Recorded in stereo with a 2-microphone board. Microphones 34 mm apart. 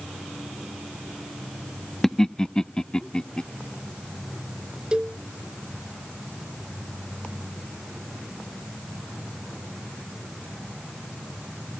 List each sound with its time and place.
2.0 s laughter: 15° left (ahead or behind); by 3.4 s 25° left (ahead or behind)
4.9 s a cowbell: 20° right (ahead or behind)